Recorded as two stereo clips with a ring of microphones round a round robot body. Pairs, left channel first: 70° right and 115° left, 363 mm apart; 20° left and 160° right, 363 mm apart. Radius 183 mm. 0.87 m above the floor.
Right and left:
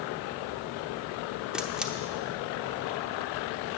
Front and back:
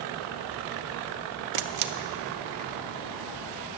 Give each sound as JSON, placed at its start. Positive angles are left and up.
{"t": 1.5, "sound": "a camera shutter", "azimuth_deg": -160, "distance_m": 0.8}